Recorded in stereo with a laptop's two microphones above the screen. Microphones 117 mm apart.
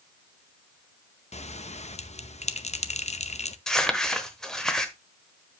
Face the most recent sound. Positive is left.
turn(degrees=5)  # may be behind; listen again after turning